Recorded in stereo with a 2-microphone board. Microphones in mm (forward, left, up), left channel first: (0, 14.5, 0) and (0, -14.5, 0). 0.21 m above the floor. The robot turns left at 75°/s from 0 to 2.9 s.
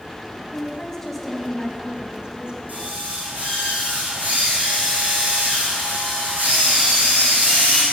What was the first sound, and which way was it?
A woman speaking, 60° left.